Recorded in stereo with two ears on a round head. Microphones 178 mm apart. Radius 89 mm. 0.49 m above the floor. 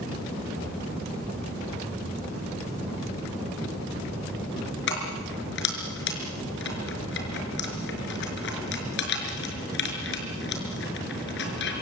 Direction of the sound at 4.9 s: 60° left (ahead or behind).